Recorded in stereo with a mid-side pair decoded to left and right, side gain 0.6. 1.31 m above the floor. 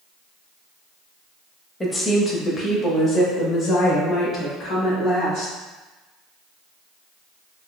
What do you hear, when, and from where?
1.8 s a woman speaking: 20° left, 1.0 m; by 5.5 s 55° left, 3.5 m